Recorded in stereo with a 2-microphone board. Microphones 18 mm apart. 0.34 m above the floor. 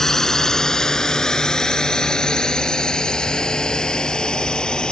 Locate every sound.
0.0 s a drone: 30° left (ahead or behind); by 4.9 s 55° left (ahead or behind)